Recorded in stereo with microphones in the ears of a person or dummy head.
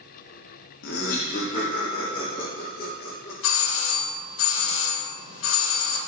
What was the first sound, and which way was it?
Laughter, 60° left (ahead or behind).